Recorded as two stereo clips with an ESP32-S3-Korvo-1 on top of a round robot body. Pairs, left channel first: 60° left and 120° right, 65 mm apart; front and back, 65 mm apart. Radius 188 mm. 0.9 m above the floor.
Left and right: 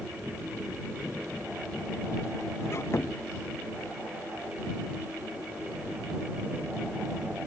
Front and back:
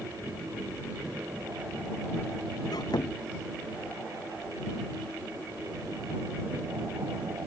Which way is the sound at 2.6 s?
10° left.